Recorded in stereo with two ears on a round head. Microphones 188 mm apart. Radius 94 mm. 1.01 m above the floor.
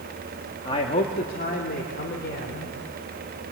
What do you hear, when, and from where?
0.7 s a man speaking: 25° left (ahead or behind), 1.8 m; by 2.8 s 55° left (ahead or behind), 4.5 m